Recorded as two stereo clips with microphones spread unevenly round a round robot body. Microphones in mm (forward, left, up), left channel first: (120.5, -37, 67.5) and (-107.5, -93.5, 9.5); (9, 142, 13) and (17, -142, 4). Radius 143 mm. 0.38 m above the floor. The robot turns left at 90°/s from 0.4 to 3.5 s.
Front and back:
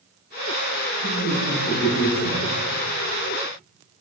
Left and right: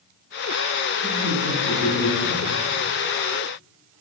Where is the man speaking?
5° left, 1.3 m; by 2.5 s 125° right, 1.3 m.